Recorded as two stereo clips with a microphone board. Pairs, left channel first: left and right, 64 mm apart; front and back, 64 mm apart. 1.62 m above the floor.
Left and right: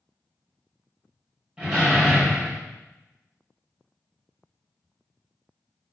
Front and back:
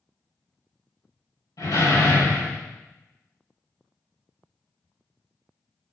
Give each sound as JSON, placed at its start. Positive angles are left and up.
{"t": 1.6, "sound": "a door slam", "azimuth_deg": -15, "distance_m": 5.0}